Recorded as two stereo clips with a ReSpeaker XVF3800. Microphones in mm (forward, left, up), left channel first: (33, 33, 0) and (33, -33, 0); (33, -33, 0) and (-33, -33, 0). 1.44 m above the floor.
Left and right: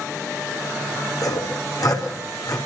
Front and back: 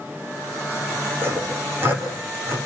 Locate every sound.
1.2 s sawing: 125° left, 5.5 m